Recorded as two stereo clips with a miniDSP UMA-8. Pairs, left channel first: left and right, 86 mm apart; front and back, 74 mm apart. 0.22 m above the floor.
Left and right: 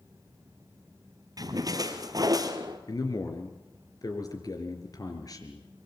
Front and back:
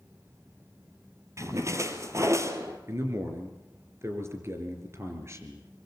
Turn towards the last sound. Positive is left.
turn(degrees=130)